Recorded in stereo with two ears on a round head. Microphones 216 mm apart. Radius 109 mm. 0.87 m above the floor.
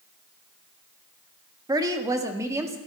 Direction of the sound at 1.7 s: 15° right (ahead or behind).